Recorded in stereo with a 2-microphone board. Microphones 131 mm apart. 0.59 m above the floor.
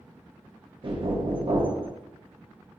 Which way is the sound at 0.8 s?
40° right (ahead or behind).